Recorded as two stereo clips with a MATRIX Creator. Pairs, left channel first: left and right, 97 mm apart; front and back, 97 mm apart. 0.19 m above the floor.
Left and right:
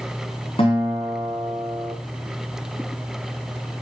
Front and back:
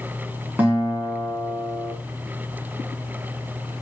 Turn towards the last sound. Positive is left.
turn(degrees=105)